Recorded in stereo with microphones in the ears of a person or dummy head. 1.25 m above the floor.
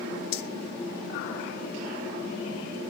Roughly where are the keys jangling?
Left.